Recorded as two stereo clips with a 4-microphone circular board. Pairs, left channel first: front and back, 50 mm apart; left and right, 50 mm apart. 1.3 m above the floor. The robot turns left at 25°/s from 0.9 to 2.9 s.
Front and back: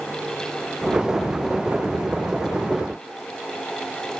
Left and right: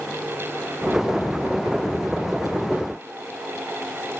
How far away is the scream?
I don't hear a scream.